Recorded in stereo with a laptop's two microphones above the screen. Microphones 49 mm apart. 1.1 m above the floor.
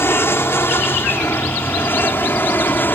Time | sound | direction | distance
0.0 | an aircraft | 55° left (ahead or behind) | ?